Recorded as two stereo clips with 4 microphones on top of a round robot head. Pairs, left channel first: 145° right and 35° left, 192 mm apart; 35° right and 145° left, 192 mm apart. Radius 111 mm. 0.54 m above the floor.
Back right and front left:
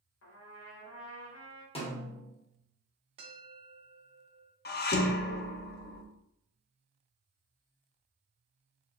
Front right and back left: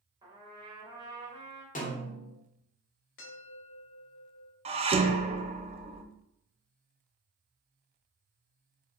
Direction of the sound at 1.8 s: 85° right.